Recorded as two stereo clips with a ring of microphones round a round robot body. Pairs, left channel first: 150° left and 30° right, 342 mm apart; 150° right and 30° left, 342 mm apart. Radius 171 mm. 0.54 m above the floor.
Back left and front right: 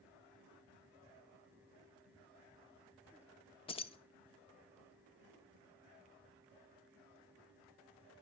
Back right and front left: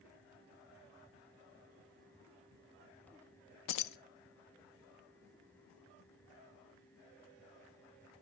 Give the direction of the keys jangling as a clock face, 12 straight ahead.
5 o'clock.